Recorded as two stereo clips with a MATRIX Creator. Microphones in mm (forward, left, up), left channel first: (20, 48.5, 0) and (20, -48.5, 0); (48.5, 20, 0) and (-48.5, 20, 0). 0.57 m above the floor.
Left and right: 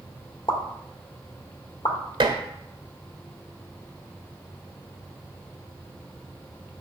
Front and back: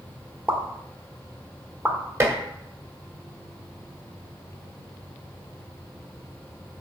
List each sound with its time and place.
0.5 s a pop: 105° left, 1.5 m
2.2 s dishes clattering: 120° right, 1.3 m